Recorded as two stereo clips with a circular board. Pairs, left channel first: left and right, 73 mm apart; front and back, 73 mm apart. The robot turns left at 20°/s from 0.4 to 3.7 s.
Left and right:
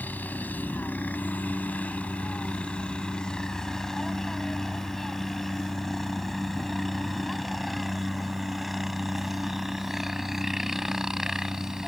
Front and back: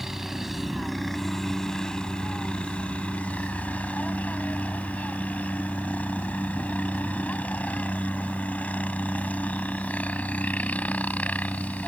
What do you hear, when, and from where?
0.0 s a helicopter: 100° left; by 11.9 s 20° right